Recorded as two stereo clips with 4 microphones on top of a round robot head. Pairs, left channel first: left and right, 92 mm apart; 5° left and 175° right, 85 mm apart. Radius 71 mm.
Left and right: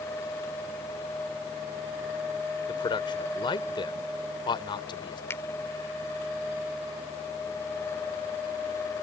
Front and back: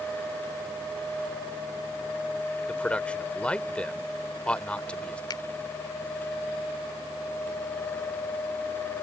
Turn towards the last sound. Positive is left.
turn(degrees=30)